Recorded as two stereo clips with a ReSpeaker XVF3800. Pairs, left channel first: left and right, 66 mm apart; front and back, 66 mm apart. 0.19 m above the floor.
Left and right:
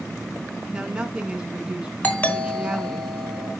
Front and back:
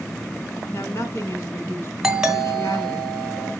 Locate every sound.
0.7 s a woman speaking: 20° right, 2 m
2.0 s a doorbell: 110° left, 2 m